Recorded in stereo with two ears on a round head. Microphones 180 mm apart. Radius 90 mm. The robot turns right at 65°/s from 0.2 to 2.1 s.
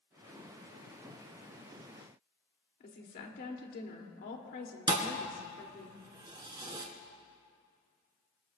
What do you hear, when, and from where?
2.8 s a woman speaking: 50° left (ahead or behind), 2.5 m
4.9 s a thud: 20° right (ahead or behind), 1.8 m